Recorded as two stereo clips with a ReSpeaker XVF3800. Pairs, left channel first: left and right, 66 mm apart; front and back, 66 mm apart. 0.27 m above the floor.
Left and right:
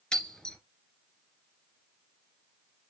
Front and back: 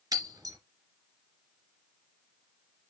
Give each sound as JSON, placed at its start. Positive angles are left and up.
{"t": 0.1, "sound": "breaking glass", "azimuth_deg": 170, "distance_m": 2.5}